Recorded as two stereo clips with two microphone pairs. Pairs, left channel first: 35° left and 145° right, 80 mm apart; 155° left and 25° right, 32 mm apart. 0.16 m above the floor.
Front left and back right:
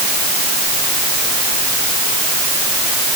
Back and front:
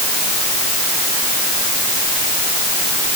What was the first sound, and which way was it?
Only background noise.